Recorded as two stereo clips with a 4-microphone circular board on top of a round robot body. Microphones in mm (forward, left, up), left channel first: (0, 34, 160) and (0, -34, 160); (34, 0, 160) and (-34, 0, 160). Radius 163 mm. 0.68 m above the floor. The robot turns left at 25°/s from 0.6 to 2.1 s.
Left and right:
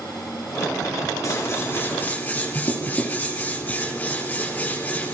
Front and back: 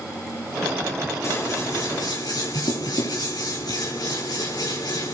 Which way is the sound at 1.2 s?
45° left.